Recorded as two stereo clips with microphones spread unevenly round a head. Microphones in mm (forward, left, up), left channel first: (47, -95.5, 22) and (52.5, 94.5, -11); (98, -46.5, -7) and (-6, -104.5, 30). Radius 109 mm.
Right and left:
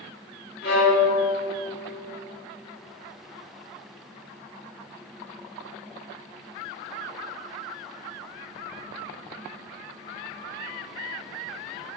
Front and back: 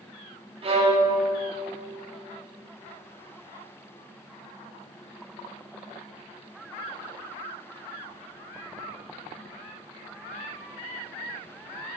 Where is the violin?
130° right, 2.5 m.